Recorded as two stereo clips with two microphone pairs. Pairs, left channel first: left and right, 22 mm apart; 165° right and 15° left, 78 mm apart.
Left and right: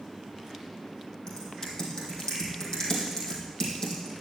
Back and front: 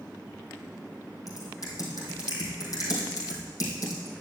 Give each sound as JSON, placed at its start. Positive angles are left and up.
{"t": 1.3, "sound": "typing on a keyboard", "azimuth_deg": 150, "distance_m": 3.0}